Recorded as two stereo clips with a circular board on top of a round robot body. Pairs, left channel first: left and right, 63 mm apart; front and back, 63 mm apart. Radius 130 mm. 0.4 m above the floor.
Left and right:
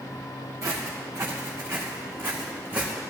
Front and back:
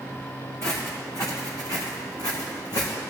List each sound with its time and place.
0.6 s footsteps: 50° right, 3 m; by 2.9 s 25° right, 2.5 m